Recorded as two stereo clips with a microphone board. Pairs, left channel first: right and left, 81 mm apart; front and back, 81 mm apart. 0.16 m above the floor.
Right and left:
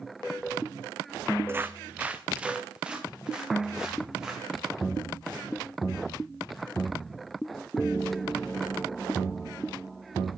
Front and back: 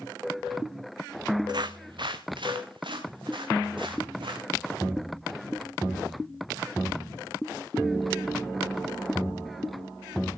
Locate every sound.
1.5 s footsteps: 150° left, 0.7 m; by 4.5 s 170° left, 4.5 m